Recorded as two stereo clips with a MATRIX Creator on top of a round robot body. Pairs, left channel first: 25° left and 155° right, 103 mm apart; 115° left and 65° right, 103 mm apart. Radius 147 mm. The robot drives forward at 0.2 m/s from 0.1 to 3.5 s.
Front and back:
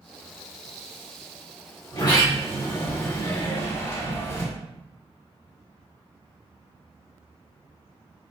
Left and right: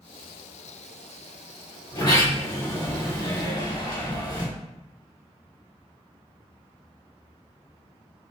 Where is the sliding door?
65° left, 1.5 m; by 4.5 s 80° left, 1.4 m.